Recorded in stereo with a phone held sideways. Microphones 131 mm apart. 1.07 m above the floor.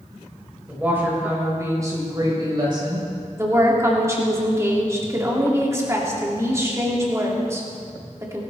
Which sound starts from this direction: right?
A woman speaking, at 3.4 s.